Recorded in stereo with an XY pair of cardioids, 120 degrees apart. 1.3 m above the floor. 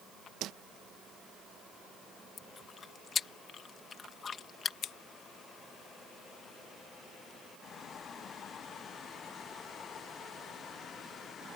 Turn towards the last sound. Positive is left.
turn(degrees=60)